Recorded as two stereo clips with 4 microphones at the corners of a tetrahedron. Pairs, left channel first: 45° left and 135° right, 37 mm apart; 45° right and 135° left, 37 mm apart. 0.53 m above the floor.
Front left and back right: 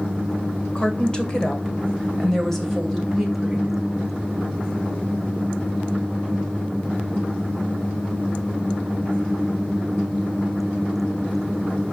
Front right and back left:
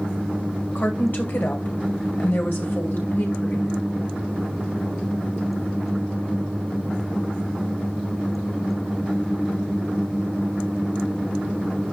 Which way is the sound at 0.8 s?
15° right.